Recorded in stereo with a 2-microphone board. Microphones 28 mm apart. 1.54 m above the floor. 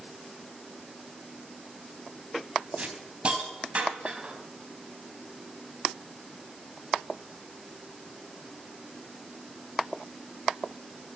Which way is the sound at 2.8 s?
40° right (ahead or behind).